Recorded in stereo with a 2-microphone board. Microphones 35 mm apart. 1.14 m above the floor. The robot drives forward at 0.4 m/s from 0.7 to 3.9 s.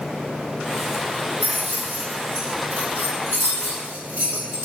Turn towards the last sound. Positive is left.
turn(degrees=-80)